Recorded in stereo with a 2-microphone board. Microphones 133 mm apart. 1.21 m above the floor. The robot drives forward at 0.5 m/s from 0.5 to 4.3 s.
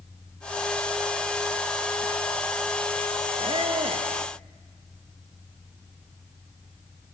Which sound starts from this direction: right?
A squeak, at 3.4 s.